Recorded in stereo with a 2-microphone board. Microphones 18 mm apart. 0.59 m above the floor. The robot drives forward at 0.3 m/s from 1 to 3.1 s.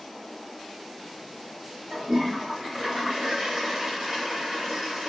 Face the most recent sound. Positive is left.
turn(degrees=-60)  # may be behind; listen again after turning